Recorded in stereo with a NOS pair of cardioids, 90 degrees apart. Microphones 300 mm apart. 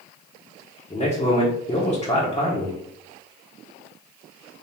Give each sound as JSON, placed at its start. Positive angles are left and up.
{"t": 0.9, "sound": "a man speaking", "azimuth_deg": 20, "distance_m": 1.3}